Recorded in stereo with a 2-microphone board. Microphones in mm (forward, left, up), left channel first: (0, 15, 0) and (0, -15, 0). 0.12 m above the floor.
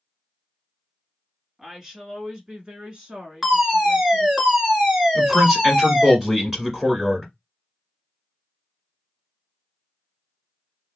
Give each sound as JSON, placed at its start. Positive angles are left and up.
{"t": 1.6, "sound": "a woman speaking", "side_deg": -15, "distance_m": 1.4}
{"t": 3.4, "sound": "a fire alarm", "side_deg": -15, "distance_m": 2.5}
{"t": 5.2, "sound": "a man speaking", "side_deg": -15, "distance_m": 1.7}